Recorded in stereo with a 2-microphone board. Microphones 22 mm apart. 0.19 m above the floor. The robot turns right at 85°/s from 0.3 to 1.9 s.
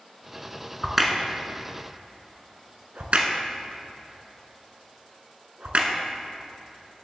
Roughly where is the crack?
Centre.